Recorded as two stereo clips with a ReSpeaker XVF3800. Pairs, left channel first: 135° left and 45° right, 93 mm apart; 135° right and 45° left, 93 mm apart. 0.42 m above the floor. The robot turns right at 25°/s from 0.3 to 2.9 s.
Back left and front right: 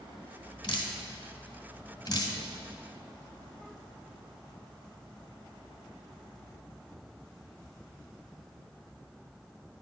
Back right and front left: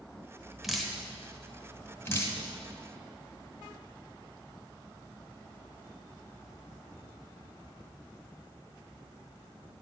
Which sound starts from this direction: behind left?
Dripping, at 0.6 s.